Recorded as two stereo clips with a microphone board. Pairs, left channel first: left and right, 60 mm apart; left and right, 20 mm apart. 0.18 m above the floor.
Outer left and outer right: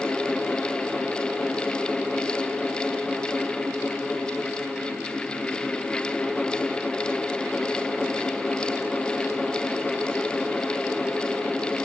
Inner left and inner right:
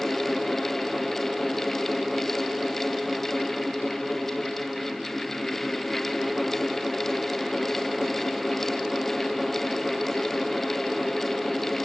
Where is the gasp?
I don't hear a gasp.